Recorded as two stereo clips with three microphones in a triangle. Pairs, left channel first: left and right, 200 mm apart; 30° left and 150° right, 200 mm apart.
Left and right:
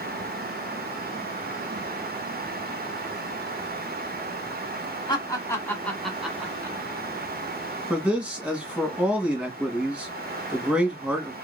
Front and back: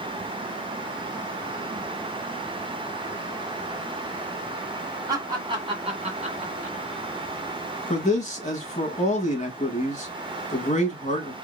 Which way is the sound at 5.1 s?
145° left.